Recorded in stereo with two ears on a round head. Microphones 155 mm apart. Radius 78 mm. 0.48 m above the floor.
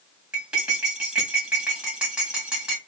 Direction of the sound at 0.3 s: 5° right (ahead or behind).